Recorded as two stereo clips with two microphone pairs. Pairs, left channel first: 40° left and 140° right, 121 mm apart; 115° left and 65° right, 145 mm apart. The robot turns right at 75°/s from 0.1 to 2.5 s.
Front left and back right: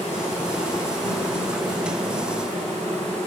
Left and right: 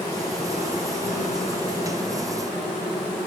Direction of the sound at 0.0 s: 50° left.